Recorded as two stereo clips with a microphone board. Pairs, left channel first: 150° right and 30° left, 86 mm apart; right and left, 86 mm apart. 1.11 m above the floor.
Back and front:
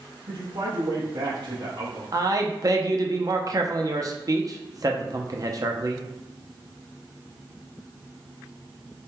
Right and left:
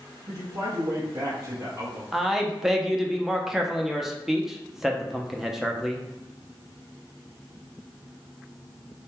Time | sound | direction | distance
0.3 | a man speaking | 55° left | 1.5 m
2.1 | a man speaking | 5° left | 0.6 m